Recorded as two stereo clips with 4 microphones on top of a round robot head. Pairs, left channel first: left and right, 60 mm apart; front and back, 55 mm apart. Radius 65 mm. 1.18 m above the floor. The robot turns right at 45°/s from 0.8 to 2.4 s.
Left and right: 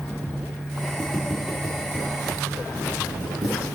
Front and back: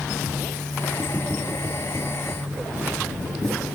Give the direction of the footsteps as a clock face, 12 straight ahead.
6 o'clock.